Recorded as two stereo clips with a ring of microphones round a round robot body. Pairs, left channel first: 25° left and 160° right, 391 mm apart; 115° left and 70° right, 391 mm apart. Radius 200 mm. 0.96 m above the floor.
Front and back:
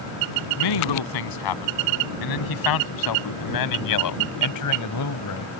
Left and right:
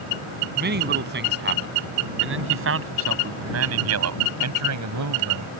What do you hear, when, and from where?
0.6 s a man speaking: 5° right; by 5.5 s 25° right